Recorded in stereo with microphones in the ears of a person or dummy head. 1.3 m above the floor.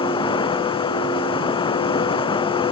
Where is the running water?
25° left (ahead or behind).